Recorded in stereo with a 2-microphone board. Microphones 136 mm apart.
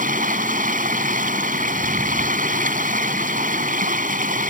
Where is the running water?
80° right.